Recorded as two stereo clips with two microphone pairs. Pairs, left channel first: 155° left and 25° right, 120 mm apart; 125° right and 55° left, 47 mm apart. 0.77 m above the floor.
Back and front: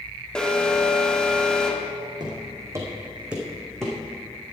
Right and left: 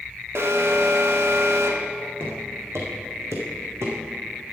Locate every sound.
0.3 s an alarm: 70° left, 1.2 m
2.2 s footsteps: 25° left, 2.5 m; by 4.0 s 75° left, 3 m